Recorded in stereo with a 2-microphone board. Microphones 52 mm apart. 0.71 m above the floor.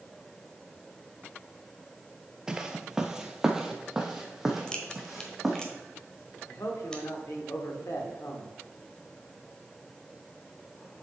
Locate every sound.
2.5 s footsteps: 15° right (ahead or behind), 0.7 m; by 5.6 s 5° right (ahead or behind), 2 m
4.7 s a crack: 15° left (ahead or behind), 1.1 m
6.5 s a man speaking: 75° left (ahead or behind), 1.5 m